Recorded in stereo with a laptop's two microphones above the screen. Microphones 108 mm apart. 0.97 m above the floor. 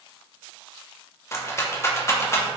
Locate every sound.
1.3 s a rattle: 25° left (ahead or behind), 0.5 m